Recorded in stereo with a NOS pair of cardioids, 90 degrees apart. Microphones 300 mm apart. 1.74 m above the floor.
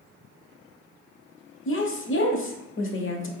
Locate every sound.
1.6 s a woman speaking: 40° left, 1.0 m